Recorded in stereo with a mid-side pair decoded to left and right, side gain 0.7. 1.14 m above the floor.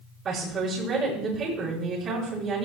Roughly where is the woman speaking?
Ahead right.